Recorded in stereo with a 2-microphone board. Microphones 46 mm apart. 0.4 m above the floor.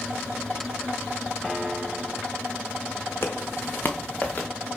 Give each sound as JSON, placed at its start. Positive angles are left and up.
{"t": 1.4, "sound": "a piano", "side_deg": 15, "distance_m": 1.5}
{"t": 3.2, "sound": "footsteps", "side_deg": 50, "distance_m": 1.2}